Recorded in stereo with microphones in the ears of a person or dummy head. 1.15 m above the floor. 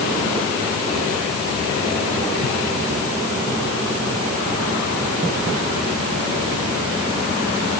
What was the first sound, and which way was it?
Only background noise.